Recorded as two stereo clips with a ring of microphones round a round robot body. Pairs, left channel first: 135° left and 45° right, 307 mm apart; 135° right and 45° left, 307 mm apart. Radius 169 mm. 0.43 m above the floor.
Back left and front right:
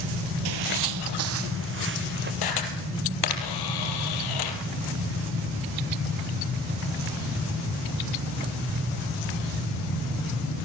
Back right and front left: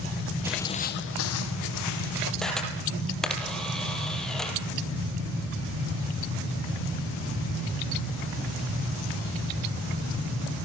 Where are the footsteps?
35° right, 0.7 m; by 2.3 s 105° right, 2.5 m.